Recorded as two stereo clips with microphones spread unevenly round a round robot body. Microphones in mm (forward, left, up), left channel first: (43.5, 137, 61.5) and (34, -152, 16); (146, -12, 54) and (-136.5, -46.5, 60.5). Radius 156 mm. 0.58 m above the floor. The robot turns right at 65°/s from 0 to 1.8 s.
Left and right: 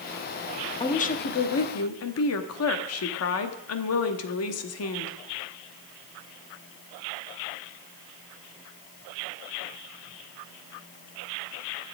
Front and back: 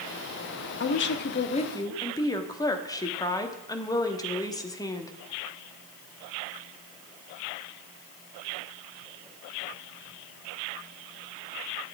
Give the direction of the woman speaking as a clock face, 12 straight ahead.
12 o'clock.